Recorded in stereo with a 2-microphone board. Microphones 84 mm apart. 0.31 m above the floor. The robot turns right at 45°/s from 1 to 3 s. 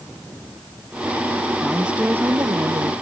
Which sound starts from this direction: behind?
A woman speaking, at 1.6 s.